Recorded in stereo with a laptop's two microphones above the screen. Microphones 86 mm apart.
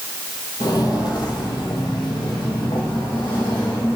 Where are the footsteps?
50° left (ahead or behind), 1.6 m; by 4.0 s 70° left (ahead or behind), 3.5 m.